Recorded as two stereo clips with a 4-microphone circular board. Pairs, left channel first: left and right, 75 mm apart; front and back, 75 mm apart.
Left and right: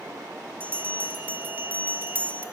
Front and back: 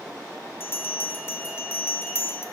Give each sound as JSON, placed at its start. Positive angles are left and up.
{"t": 0.6, "sound": "a bell", "azimuth_deg": -40, "distance_m": 0.7}